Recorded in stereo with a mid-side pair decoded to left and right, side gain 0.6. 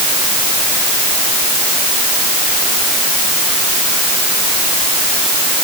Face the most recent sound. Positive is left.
No sound to turn to.